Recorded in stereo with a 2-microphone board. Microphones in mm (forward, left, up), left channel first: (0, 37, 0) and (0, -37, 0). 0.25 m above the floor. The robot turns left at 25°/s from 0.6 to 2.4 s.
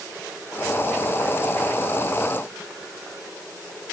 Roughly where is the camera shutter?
I don't hear a camera shutter.